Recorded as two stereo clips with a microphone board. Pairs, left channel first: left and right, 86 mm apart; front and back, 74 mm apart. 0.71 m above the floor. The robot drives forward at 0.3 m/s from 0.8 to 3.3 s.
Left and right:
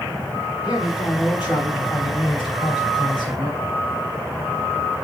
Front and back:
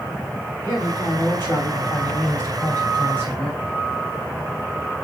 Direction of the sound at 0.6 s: 55° left.